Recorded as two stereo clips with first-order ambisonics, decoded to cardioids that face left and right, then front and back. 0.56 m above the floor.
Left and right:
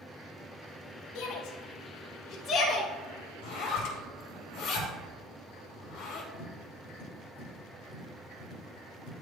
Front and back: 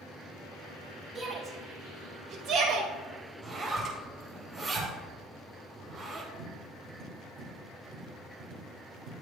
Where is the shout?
105° left, 1.8 m; by 2.9 s 155° left, 1.8 m.